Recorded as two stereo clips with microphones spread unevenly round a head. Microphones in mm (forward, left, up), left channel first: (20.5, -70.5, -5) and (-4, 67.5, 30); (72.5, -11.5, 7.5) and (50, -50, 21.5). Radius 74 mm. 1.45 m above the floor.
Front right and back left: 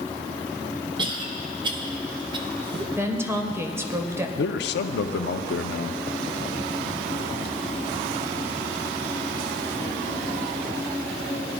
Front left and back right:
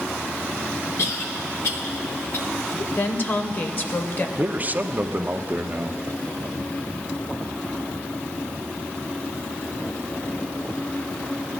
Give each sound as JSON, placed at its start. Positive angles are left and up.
{"t": 1.0, "sound": "a cough", "azimuth_deg": 40, "distance_m": 1.4}
{"t": 3.0, "sound": "a woman speaking", "azimuth_deg": 20, "distance_m": 1.1}
{"t": 4.4, "sound": "a man speaking", "azimuth_deg": -65, "distance_m": 0.6}